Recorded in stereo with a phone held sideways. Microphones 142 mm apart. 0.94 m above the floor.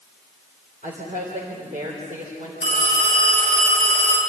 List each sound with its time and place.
0.8 s a woman speaking: 65° right (ahead or behind), 4 m
2.6 s a phone ringing: 85° right, 8 m